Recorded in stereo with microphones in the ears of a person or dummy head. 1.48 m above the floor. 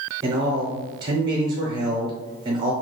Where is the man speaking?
30° right (ahead or behind), 0.6 m.